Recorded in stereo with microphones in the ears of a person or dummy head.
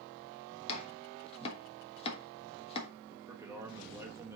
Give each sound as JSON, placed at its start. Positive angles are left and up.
{"t": 0.7, "sound": "chopping", "side_deg": 35, "distance_m": 1.2}
{"t": 3.1, "sound": "a man speaking", "side_deg": -15, "distance_m": 1.4}